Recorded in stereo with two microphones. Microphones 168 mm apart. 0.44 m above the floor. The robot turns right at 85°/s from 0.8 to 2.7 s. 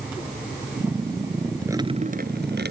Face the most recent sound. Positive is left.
turn(degrees=-80)